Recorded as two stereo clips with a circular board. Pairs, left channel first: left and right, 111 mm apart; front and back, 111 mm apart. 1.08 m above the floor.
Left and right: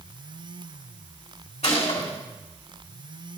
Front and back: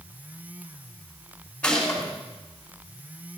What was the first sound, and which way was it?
A gunshot, 80° left.